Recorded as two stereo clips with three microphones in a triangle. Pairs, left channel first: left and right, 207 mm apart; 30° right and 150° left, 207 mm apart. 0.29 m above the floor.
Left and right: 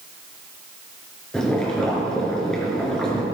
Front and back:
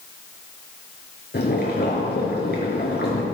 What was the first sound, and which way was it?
Boiling, 5° left.